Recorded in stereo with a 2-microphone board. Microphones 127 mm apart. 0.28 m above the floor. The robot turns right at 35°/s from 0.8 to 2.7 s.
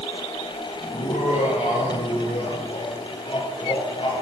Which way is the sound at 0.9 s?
70° left.